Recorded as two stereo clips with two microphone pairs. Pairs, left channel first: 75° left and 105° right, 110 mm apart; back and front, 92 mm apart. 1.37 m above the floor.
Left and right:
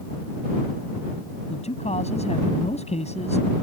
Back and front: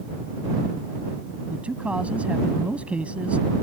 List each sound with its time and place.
1.5 s a man speaking: 75° left